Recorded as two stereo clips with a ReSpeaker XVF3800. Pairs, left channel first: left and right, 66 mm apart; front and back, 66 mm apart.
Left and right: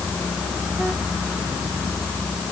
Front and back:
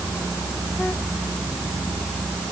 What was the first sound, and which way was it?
Only background noise.